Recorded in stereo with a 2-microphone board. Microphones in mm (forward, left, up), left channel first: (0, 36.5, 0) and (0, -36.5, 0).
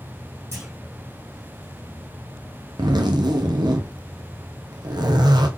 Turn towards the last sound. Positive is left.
turn(degrees=-70)  # may be behind; listen again after turning